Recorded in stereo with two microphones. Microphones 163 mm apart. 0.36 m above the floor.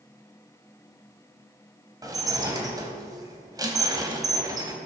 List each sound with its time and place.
2.0 s dishes clattering: 25° right (ahead or behind), 1.5 m